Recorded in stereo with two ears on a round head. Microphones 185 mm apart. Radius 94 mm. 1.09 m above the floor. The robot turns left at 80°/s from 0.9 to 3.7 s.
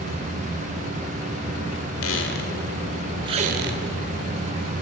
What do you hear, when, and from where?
2.0 s a squeak: 70° left (ahead or behind), 1.9 m; by 3.8 s 55° right (ahead or behind), 1.9 m